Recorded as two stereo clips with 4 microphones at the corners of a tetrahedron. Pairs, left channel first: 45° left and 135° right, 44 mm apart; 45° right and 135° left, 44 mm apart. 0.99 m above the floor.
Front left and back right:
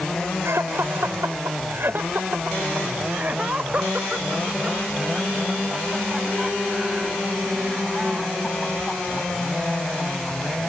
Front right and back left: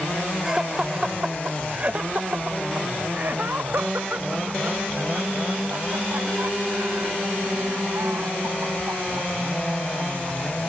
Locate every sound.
0.4 s laughter: 150° right; by 10.6 s 135° left